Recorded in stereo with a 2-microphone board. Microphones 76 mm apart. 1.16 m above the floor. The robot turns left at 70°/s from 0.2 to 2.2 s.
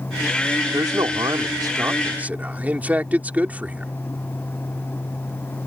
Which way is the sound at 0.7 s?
55° right.